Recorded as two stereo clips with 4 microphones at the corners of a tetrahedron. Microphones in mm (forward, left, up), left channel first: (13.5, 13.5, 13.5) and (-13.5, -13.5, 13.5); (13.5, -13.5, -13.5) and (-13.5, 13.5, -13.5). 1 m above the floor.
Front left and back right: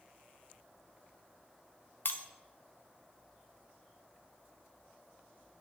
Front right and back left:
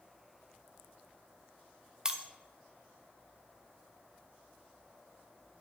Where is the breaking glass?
60° left, 0.6 m.